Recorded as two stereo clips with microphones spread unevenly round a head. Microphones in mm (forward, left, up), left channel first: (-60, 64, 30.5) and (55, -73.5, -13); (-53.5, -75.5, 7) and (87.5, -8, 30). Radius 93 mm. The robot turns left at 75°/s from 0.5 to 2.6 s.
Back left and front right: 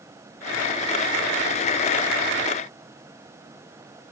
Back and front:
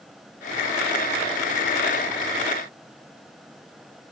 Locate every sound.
Only background noise.